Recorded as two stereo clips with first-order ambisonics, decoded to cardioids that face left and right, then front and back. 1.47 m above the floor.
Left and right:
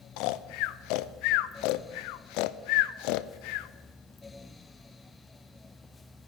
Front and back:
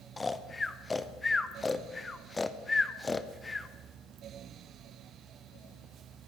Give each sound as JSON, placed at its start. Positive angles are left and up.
{"t": 0.2, "sound": "snoring", "azimuth_deg": 80, "distance_m": 0.5}